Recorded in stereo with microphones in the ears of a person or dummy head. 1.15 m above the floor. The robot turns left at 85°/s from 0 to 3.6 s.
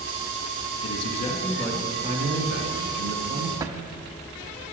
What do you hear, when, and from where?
0.8 s a man speaking: 70° left, 1.6 m; by 3.5 s 155° right, 1.6 m
3.6 s a drawer: 20° right (ahead or behind), 0.5 m